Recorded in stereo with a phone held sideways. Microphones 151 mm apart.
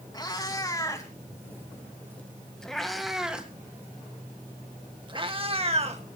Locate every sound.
0.1 s a cat meowing: 25° left (ahead or behind), 3 m; by 6.0 s 45° right (ahead or behind), 1.9 m